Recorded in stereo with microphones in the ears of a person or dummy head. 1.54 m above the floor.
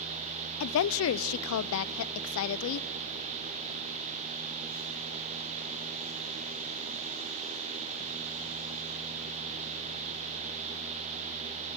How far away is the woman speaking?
About 0.6 m.